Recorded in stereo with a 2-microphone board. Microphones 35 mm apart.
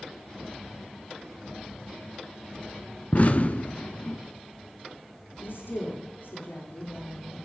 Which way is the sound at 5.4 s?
80° left.